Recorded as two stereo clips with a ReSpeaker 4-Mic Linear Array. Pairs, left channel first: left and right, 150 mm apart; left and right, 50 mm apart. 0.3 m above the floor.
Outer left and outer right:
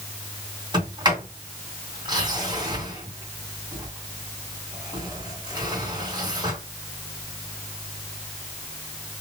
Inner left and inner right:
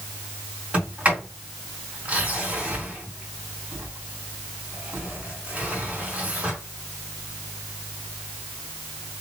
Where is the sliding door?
30° right (ahead or behind), 2.5 m.